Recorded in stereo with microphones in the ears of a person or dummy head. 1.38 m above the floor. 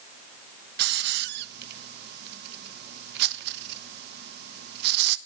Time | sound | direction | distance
0.8 | a hiss | 60° right (ahead or behind) | 1.1 m